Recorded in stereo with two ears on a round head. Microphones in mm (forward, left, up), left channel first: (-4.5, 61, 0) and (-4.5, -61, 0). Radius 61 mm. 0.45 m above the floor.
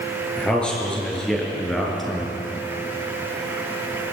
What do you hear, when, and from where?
0.4 s a man speaking: 10° left (ahead or behind), 7.5 m; by 2.4 s centre (ahead or behind), 5.5 m